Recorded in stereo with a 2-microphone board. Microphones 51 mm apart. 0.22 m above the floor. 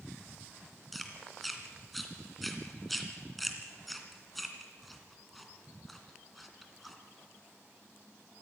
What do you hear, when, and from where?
0.9 s chewing: centre (ahead or behind), 2.5 m